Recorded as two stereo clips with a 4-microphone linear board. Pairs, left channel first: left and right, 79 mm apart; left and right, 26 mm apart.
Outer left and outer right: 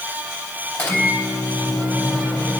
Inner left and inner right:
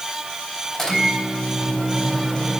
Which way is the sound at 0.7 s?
15° left (ahead or behind).